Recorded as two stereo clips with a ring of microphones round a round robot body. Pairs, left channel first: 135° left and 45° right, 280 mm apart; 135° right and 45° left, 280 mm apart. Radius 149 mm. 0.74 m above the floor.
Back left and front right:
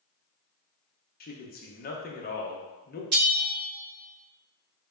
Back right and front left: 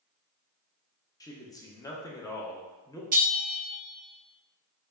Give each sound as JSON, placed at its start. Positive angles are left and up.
{"t": 1.2, "sound": "a man speaking", "azimuth_deg": 155, "distance_m": 0.8}
{"t": 3.1, "sound": "a bell", "azimuth_deg": -15, "distance_m": 2.0}